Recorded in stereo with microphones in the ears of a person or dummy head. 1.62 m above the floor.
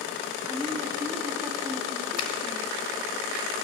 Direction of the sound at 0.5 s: 10° right (ahead or behind).